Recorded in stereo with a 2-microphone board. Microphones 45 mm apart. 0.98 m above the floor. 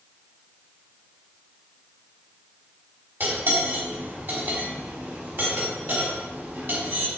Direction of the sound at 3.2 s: 55° right (ahead or behind).